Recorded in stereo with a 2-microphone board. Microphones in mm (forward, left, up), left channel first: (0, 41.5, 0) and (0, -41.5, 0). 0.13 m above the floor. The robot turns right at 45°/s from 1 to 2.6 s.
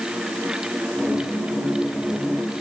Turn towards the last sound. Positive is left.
No sound to turn to.